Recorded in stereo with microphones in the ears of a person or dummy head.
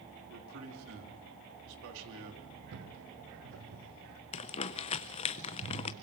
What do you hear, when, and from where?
0.3 s a man speaking: 75° right (ahead or behind), 3.5 m
2.7 s footsteps: 65° right (ahead or behind), 3.5 m; by 4.2 s 70° right (ahead or behind), 5.5 m
4.3 s crumpling: 30° left (ahead or behind), 0.6 m